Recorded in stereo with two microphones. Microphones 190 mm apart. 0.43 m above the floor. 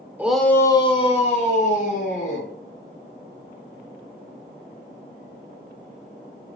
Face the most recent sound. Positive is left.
turn(degrees=50)  # may be behind; listen again after turning